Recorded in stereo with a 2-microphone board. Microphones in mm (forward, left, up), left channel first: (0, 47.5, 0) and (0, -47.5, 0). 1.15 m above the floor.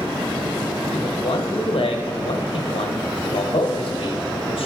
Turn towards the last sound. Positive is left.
turn(degrees=70)  # may be behind; listen again after turning